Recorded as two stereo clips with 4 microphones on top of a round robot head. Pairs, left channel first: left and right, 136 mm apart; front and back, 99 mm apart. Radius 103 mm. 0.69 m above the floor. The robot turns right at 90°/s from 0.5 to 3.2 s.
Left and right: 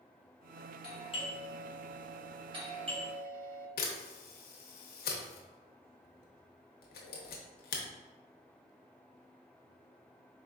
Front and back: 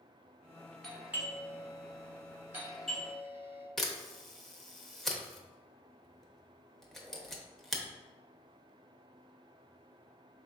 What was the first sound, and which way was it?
A doorbell, 85° left.